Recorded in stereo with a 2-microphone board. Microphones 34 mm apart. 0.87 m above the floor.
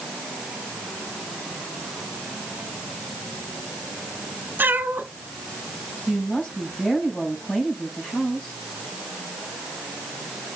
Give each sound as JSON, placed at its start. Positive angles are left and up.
{"t": 4.6, "sound": "a cat meowing", "side_deg": -70, "distance_m": 1.8}
{"t": 6.1, "sound": "a woman speaking", "side_deg": 30, "distance_m": 4.5}